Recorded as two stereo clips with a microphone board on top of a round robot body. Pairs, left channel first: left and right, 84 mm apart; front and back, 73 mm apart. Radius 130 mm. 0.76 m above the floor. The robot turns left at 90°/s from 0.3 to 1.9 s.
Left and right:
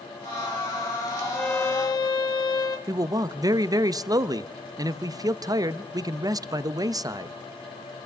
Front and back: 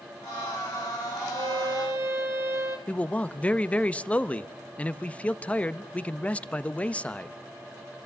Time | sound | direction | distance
1.3 | a violin | straight behind | 0.7 m
2.9 | a man speaking | 65° right | 0.9 m